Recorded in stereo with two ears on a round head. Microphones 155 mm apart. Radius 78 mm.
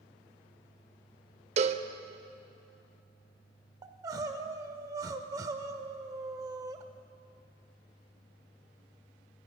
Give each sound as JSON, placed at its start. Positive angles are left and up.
{"t": 1.6, "sound": "a cowbell", "side_deg": -40, "distance_m": 0.5}
{"t": 3.8, "sound": "crying", "side_deg": -20, "distance_m": 0.7}